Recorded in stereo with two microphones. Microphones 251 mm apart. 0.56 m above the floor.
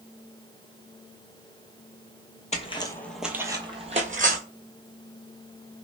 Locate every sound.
2.5 s footsteps: 30° left (ahead or behind), 0.6 m; by 4.4 s 35° right (ahead or behind), 0.9 m